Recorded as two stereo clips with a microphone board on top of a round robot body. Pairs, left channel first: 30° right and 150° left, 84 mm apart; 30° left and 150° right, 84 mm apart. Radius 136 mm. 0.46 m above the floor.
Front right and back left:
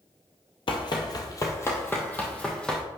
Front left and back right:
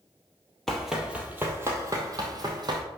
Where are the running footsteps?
55° right, 1.0 m; by 2.8 s 110° right, 1.6 m.